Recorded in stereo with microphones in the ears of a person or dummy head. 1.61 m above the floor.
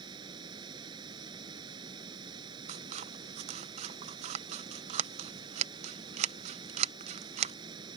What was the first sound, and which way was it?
Running water, 30° right (ahead or behind).